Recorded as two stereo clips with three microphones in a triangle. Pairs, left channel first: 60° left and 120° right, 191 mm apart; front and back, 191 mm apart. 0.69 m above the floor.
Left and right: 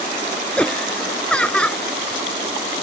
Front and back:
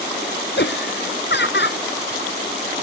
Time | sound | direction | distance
0.6 | laughter | 25° right | ?